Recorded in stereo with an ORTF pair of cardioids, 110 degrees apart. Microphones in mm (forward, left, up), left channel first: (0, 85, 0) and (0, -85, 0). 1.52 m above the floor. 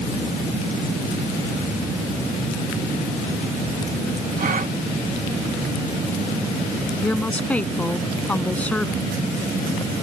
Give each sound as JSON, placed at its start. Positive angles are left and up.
{"t": 4.4, "sound": "a gasp", "azimuth_deg": -50}
{"t": 7.0, "sound": "a woman speaking", "azimuth_deg": 10}